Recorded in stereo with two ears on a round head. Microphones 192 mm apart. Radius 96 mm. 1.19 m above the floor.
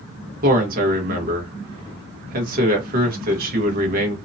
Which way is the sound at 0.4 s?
40° right (ahead or behind).